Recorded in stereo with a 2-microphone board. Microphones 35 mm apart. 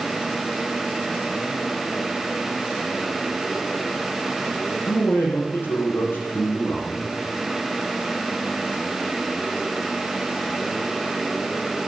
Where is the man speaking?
75° left (ahead or behind), 6.5 m.